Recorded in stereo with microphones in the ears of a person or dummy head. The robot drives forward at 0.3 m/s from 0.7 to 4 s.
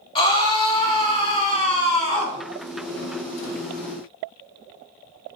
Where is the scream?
35° left (ahead or behind), 3 m; by 2.4 s 40° left (ahead or behind), 2.5 m.